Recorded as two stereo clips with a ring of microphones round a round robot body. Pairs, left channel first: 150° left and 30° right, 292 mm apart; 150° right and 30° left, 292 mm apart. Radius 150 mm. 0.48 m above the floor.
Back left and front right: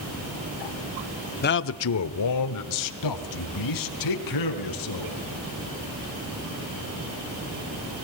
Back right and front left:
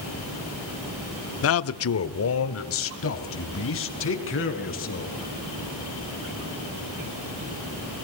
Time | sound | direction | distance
1.4 | a man speaking | 165° right | 0.9 m